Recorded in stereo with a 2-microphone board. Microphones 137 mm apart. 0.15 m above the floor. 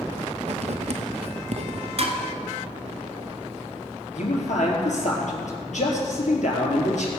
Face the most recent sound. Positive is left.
turn(degrees=65)  # may be behind; listen again after turning